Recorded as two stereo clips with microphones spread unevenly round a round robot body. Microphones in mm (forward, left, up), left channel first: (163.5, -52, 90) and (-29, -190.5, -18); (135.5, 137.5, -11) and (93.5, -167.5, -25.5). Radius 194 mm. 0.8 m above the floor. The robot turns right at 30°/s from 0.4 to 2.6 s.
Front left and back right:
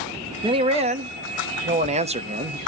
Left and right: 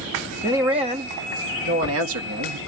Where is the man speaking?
175° right, 1.0 m; by 2.6 s 110° right, 1.0 m.